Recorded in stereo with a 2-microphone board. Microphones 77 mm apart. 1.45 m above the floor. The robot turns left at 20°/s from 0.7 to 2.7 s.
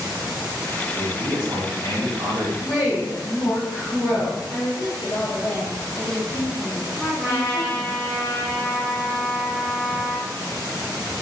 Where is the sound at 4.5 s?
60° left (ahead or behind), 0.7 m.